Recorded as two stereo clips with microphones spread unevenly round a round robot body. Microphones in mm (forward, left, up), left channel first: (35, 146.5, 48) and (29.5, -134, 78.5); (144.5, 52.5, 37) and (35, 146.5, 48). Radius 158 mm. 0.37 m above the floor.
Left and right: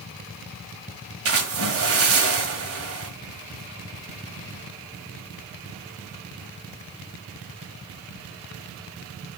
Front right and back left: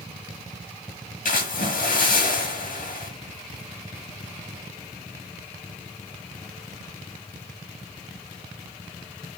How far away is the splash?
About 1.9 m.